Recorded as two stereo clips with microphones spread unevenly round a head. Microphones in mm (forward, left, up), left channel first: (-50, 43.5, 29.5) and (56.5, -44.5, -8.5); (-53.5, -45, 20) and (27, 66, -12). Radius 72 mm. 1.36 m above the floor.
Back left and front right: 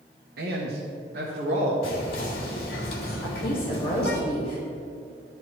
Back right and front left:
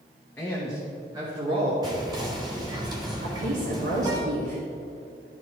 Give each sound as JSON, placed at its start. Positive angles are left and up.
{"t": 0.4, "sound": "a man speaking", "azimuth_deg": -50, "distance_m": 1.3}
{"t": 1.8, "sound": "whispering", "azimuth_deg": 115, "distance_m": 2.0}
{"t": 3.2, "sound": "a woman speaking", "azimuth_deg": 70, "distance_m": 2.5}